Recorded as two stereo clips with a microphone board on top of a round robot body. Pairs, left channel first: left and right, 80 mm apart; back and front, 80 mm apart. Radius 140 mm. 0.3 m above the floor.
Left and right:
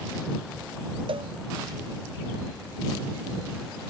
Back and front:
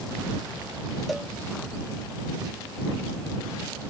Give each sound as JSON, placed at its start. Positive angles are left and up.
{"t": 1.1, "sound": "a cowbell", "azimuth_deg": -90}